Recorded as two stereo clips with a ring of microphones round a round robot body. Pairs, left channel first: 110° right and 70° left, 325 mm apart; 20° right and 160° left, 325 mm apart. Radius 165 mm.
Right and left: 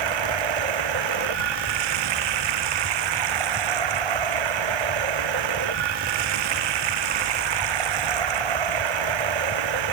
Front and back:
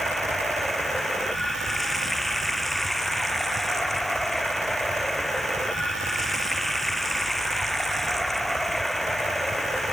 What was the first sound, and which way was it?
Running water, 65° left.